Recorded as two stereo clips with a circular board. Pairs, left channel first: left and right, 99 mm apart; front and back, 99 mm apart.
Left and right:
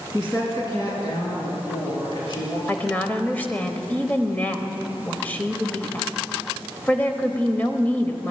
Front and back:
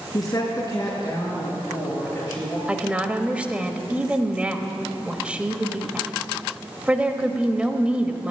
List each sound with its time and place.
0.1 s a woman speaking: 45° left, 3.5 m; by 2.6 s 65° left, 6.5 m
2.7 s a woman speaking: 130° left, 1.0 m